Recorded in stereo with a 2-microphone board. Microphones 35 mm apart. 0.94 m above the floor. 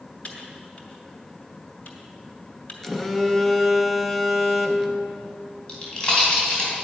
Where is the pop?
25° left (ahead or behind), 3.5 m.